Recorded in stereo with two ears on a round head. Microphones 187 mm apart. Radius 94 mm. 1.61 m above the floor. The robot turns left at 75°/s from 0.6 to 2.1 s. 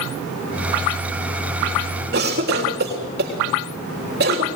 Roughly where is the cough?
Right.